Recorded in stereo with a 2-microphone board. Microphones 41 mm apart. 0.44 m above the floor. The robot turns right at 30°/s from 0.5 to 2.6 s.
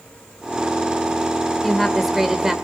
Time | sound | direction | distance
1.6 | a woman speaking | 10° left (ahead or behind) | 1.6 m